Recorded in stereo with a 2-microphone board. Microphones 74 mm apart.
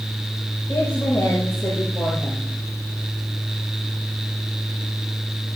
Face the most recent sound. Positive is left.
turn(degrees=45)  # may be behind; listen again after turning